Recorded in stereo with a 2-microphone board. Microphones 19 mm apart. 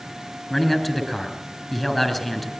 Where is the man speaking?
10° left (ahead or behind), 4 m.